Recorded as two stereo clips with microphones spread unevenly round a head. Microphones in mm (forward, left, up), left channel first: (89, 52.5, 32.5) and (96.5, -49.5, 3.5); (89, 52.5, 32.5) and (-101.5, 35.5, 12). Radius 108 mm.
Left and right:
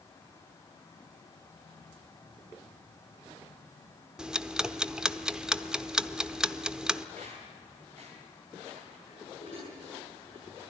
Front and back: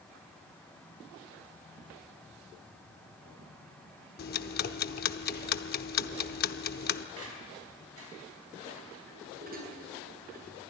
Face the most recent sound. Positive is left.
turn(degrees=145)